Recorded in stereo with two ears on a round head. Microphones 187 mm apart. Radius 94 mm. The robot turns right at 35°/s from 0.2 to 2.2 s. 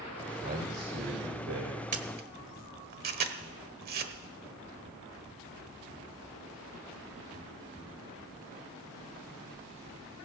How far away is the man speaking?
About 3.5 m.